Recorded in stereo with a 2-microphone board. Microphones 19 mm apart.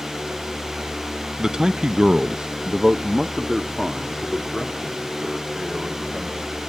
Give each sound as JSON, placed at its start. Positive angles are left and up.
{"t": 1.4, "sound": "a man speaking", "side_deg": -35, "distance_m": 0.7}